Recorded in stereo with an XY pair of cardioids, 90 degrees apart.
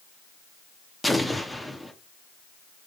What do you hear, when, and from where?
1.0 s an explosion: 5° left, 0.6 m